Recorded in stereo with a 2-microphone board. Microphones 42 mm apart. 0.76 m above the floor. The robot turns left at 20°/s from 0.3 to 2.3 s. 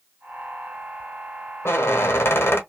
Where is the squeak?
70° left (ahead or behind), 0.8 m; by 2.6 s 75° left (ahead or behind), 0.8 m.